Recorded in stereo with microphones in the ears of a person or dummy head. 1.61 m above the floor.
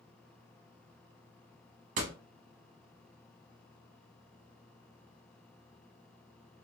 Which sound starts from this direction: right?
A door slam, at 2.0 s.